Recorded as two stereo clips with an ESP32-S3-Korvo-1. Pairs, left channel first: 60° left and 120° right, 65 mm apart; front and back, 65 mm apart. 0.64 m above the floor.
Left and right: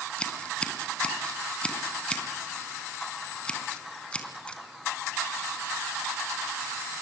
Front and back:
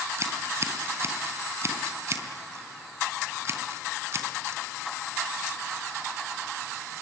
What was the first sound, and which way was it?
Scissors, 135° left.